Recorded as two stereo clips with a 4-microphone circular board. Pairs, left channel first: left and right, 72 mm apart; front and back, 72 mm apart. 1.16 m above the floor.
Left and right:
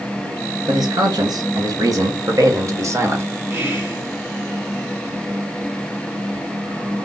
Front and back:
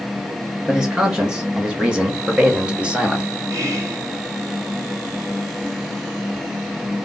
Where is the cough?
I don't hear a cough.